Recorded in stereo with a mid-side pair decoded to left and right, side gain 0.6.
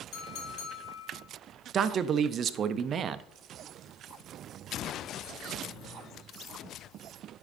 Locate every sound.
0.1 s a clink: 65° left, 2.5 m
1.7 s a man speaking: 45° right, 0.5 m